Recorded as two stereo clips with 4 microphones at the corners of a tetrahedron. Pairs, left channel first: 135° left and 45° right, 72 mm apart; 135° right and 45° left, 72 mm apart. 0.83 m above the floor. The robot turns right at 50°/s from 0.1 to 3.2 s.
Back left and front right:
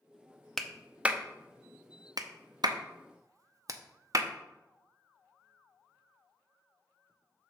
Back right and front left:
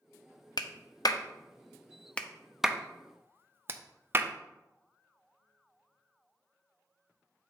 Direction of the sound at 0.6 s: 140° right.